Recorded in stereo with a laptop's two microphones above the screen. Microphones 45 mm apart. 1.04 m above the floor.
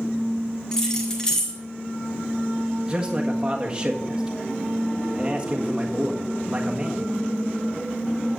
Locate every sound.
0.7 s keys jangling: 15° left (ahead or behind), 1.9 m
2.9 s a man speaking: 20° right (ahead or behind), 1.5 m